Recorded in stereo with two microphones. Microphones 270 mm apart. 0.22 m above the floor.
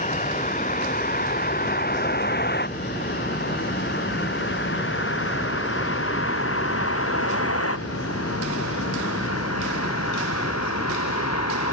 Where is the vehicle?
30° left (ahead or behind); by 11.7 s 70° left (ahead or behind).